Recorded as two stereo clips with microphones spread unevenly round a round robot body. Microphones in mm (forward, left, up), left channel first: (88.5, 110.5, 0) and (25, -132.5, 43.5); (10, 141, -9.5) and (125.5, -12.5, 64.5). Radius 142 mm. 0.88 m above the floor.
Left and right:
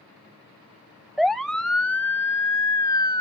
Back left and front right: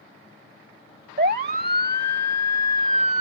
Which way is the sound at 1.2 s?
15° right.